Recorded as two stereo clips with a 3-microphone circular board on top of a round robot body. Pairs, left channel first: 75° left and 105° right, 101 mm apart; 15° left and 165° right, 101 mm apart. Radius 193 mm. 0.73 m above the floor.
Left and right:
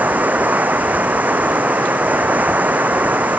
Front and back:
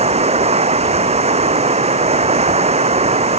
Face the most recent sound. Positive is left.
turn(degrees=180)